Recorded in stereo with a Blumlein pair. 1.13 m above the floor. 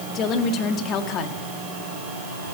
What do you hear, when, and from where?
0.1 s a woman speaking: 30° left, 1.9 m